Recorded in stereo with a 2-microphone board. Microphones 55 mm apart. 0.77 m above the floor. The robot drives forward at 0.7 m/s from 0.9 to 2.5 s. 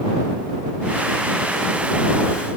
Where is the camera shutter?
I don't hear a camera shutter.